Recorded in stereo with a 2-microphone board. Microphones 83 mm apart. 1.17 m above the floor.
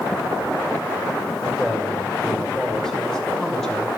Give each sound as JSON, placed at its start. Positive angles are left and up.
{"t": 1.4, "sound": "a man speaking", "side_deg": 5, "distance_m": 6.0}